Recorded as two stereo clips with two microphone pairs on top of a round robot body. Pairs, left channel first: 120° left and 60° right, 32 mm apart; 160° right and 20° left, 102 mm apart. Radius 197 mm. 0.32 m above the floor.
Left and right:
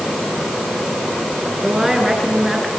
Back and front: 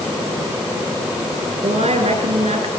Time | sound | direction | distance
1.6 | a woman speaking | 25° left | 8 m